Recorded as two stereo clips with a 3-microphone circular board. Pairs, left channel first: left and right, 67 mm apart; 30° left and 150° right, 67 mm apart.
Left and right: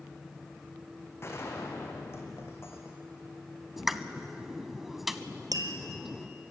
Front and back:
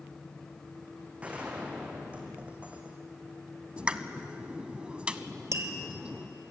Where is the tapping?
105° right, 1.6 m.